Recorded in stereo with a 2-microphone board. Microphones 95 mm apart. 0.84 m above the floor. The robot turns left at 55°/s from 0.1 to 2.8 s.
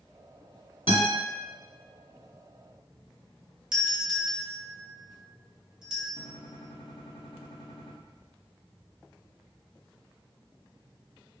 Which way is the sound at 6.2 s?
65° left (ahead or behind).